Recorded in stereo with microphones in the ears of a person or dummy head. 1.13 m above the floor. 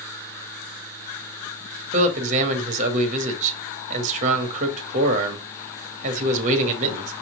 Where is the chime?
No chime in this recording.